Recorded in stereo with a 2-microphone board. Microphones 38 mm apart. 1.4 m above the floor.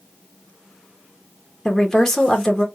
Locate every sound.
1.6 s a woman speaking: 10° left (ahead or behind), 1.1 m